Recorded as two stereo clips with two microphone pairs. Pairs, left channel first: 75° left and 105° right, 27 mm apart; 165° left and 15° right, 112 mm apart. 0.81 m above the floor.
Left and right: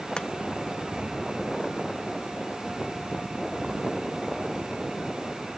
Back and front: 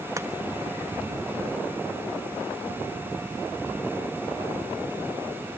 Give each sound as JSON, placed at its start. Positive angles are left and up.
{"t": 0.2, "sound": "chopping", "azimuth_deg": 35, "distance_m": 1.3}